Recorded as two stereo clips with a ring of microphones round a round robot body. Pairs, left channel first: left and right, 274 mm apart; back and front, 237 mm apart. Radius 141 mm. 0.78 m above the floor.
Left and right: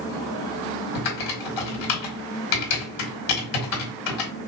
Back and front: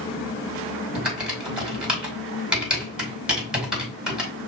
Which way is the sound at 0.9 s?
85° left.